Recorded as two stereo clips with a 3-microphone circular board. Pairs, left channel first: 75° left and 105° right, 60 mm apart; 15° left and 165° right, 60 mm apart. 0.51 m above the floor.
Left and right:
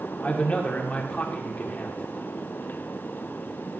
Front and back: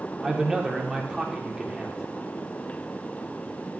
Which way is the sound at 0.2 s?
125° left.